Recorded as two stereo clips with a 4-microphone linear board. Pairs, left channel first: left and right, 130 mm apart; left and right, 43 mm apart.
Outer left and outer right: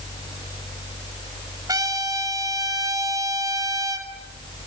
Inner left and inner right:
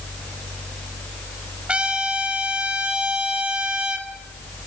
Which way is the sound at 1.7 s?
30° right (ahead or behind).